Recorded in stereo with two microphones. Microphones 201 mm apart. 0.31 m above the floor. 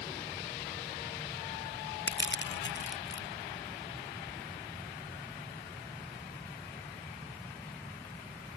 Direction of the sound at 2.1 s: 65° left (ahead or behind).